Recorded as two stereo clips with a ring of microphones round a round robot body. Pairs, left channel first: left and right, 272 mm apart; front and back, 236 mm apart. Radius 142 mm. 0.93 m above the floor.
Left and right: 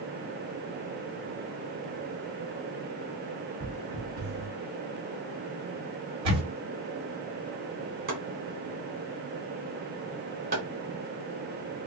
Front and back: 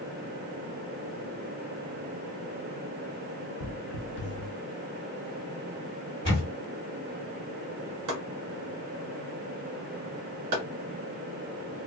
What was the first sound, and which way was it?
Footsteps, 30° right.